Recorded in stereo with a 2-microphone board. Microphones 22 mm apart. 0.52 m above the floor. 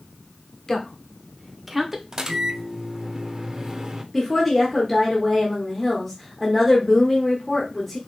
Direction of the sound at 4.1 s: 5° left (ahead or behind).